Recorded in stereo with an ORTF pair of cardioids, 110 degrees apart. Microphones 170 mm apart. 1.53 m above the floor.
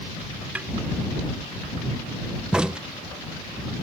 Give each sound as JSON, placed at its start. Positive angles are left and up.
{"t": 0.6, "sound": "a snare drum", "azimuth_deg": -10}
{"t": 2.5, "sound": "a crack", "azimuth_deg": -5}